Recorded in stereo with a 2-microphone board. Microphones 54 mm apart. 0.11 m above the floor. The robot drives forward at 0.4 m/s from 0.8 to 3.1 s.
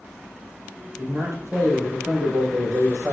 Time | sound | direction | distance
1.0 | a man speaking | 65° right (ahead or behind) | 3.5 m